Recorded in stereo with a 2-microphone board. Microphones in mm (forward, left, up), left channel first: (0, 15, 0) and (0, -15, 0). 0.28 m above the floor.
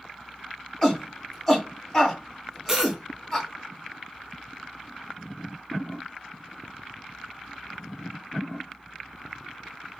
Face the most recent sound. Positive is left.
turn(degrees=-25)  # may be behind; listen again after turning